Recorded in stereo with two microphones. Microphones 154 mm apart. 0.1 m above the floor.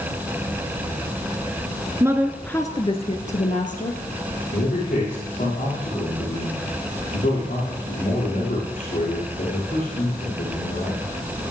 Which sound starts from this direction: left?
A man speaking, at 4.5 s.